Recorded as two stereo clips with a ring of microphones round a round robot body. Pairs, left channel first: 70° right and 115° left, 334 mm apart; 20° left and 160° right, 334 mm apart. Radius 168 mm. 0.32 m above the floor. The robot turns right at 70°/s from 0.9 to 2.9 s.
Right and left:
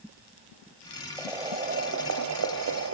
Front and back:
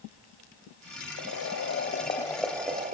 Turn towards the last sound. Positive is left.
turn(degrees=145)